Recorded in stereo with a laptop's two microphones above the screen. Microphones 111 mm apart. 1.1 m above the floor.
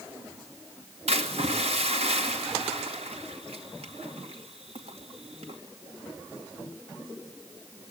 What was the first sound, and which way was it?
A splash, 65° right (ahead or behind).